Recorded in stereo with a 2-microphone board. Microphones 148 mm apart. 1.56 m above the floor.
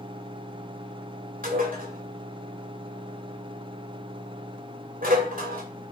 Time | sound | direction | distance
1.4 | dishes clattering | 70° right (ahead or behind) | 3 m